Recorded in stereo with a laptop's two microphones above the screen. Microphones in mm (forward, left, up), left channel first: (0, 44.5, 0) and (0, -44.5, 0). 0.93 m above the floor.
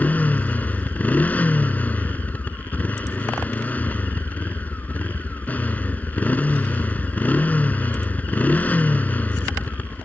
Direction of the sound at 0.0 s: 20° left (ahead or behind).